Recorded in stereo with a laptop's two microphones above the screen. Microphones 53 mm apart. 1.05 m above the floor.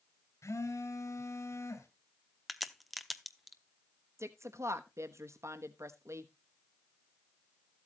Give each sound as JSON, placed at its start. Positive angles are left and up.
{"t": 0.4, "sound": "a phone buzzing", "side_deg": 70, "distance_m": 2.5}
{"t": 2.5, "sound": "a crack", "side_deg": 0, "distance_m": 0.6}
{"t": 4.2, "sound": "a woman speaking", "side_deg": -60, "distance_m": 1.1}